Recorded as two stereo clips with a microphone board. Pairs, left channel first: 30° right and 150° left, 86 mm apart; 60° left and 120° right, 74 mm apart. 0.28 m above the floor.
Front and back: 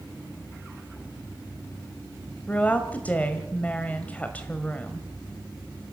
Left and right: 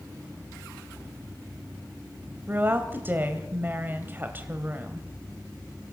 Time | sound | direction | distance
2.5 | a woman speaking | 85° right | 1.7 m